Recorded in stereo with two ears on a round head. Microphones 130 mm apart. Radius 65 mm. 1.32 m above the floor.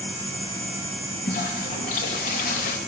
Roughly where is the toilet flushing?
Left.